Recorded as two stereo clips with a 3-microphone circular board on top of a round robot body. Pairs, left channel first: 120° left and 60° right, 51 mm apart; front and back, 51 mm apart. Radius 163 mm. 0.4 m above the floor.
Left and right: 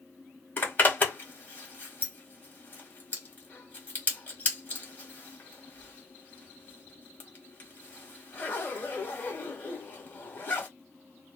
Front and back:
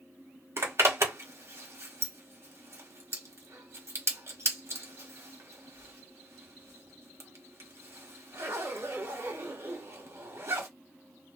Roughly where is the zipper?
Behind.